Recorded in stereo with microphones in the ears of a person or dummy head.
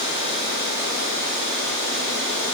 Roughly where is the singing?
I don't hear singing.